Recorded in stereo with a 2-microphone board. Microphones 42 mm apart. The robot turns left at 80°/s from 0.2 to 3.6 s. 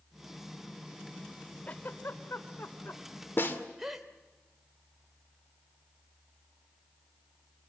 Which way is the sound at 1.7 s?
35° left (ahead or behind).